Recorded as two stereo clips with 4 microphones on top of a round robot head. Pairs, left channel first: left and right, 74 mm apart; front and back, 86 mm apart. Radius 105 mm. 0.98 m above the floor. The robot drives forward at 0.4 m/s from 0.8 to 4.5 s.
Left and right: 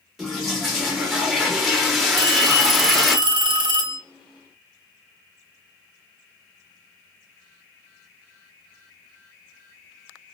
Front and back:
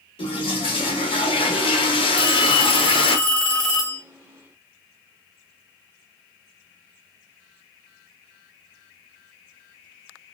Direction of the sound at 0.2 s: Straight ahead.